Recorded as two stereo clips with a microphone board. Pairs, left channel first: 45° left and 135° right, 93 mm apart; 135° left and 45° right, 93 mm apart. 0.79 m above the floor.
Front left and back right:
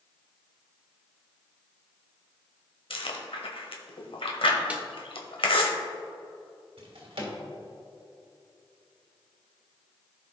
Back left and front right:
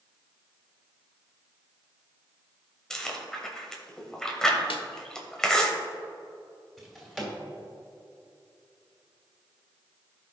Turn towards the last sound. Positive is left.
turn(degrees=-140)